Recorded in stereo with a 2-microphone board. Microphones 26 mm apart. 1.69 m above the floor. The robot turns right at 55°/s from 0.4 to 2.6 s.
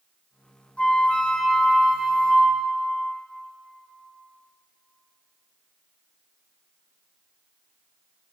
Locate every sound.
0.8 s a flute: 105° left, 0.5 m; by 2.8 s 155° right, 0.5 m